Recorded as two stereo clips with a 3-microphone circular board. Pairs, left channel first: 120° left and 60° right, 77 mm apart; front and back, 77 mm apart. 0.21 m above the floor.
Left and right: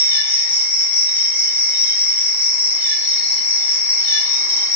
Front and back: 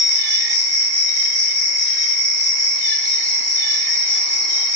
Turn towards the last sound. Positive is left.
turn(degrees=-45)